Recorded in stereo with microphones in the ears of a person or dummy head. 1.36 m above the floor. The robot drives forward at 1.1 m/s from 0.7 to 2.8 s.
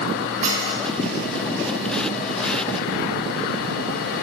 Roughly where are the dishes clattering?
Right.